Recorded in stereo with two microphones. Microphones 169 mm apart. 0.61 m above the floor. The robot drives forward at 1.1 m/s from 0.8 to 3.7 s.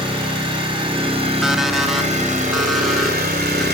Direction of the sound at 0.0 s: 30° right (ahead or behind).